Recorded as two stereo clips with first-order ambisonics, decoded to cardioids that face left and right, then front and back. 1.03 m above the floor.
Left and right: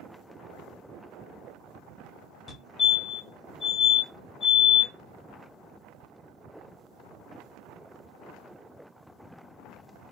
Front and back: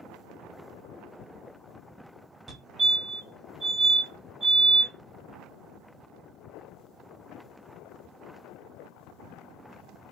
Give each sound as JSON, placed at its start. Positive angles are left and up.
{"t": 2.5, "sound": "a fire alarm", "azimuth_deg": 120, "distance_m": 1.2}